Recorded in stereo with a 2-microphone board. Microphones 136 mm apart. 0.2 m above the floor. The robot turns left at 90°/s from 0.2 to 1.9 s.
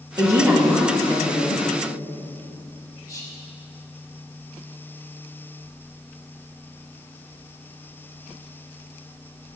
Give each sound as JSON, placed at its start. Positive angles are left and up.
{"t": 0.2, "sound": "a woman speaking", "azimuth_deg": -125, "distance_m": 1.2}
{"t": 3.1, "sound": "whispering", "side_deg": 25, "distance_m": 1.0}